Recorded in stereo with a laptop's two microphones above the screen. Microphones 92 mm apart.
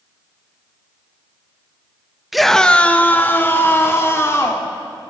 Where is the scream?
Centre (ahead or behind), 1.0 m; by 4.7 s 30° left (ahead or behind), 3.5 m.